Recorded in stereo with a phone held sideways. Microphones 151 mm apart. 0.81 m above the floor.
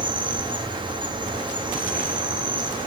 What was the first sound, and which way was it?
An insect, 30° right (ahead or behind).